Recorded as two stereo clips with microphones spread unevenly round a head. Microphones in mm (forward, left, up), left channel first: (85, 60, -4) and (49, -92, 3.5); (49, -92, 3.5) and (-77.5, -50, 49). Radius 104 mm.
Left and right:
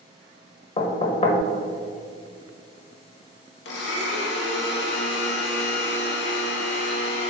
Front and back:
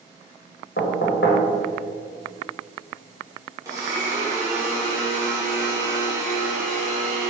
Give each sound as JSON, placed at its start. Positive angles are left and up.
{"t": 0.8, "sound": "knocking", "azimuth_deg": 25, "distance_m": 1.1}
{"t": 3.6, "sound": "a blender", "azimuth_deg": 85, "distance_m": 1.1}